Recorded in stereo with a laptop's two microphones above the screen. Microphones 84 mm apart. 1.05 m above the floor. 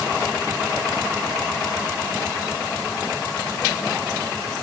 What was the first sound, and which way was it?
Only background noise.